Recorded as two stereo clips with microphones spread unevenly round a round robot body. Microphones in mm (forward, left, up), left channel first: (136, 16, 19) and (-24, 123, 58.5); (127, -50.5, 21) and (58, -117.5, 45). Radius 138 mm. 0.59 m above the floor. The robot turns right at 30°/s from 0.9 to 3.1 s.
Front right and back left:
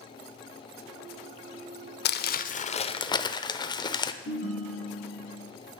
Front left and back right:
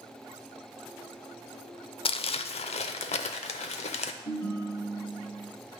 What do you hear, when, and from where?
2.0 s crumpling: 10° left, 0.5 m; by 4.1 s 40° left, 0.5 m
4.2 s a ringtone: 5° left, 4 m